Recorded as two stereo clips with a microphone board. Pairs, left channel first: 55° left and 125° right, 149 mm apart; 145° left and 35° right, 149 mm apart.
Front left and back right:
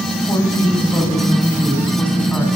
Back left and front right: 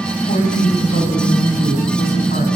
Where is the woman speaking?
125° left, 9 m; by 2.5 s 135° left, 10.5 m.